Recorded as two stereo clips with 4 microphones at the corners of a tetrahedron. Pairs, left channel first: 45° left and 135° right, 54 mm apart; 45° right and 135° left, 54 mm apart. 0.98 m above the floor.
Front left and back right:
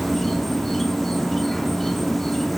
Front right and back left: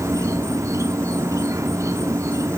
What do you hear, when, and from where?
0.0 s an insect: 130° left, 1.0 m